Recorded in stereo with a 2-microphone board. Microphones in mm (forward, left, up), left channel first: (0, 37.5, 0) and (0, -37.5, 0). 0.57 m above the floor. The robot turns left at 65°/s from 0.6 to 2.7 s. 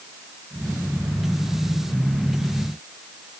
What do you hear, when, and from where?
Only background noise.